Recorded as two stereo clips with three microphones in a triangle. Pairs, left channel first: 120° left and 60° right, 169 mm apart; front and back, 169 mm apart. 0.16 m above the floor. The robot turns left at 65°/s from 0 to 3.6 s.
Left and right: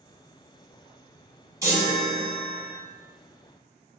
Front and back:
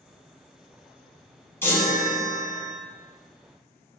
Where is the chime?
45° right, 0.8 m; by 2.7 s 115° right, 0.8 m.